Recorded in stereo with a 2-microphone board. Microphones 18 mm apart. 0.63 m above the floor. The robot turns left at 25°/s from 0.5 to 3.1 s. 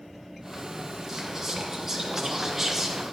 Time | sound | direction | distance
1.1 | whispering | 20° right (ahead or behind) | 0.8 m